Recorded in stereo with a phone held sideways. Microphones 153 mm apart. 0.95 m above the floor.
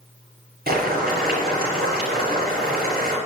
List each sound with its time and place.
0.7 s boiling: 70° right (ahead or behind), 6.5 m